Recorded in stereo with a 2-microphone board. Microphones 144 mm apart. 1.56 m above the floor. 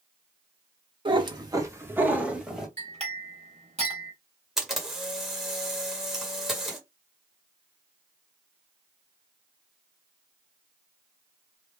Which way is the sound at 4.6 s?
Centre (ahead or behind).